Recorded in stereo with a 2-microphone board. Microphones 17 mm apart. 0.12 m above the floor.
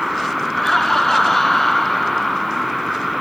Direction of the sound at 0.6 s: 20° left (ahead or behind).